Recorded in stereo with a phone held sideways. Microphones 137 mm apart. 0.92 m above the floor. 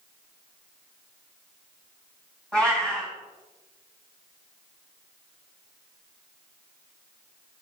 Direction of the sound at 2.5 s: 10° left (ahead or behind).